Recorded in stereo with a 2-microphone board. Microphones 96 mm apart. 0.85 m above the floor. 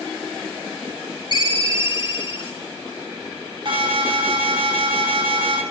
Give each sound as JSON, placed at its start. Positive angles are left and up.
{"t": 1.3, "sound": "a ringtone", "side_deg": 55, "distance_m": 2.0}
{"t": 3.6, "sound": "an alarm", "side_deg": -55, "distance_m": 5.0}